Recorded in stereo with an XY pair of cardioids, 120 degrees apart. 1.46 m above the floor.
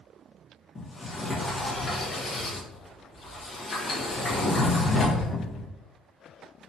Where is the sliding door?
25° left, 1.5 m.